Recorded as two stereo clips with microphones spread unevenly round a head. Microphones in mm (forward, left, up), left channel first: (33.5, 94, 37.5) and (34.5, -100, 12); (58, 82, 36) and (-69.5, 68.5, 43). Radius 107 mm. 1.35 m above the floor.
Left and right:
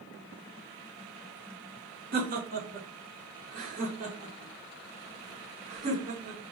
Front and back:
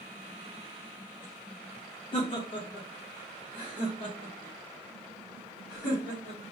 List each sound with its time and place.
2.1 s laughter: 55° right, 1.4 m; by 6.4 s 35° right, 3.5 m